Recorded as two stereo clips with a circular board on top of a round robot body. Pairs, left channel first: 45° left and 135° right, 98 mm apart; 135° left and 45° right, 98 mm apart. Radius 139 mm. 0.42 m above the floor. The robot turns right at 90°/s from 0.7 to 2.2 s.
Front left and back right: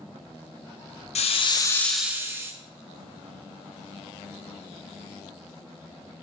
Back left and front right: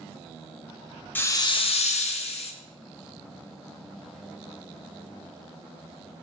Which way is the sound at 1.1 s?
60° left.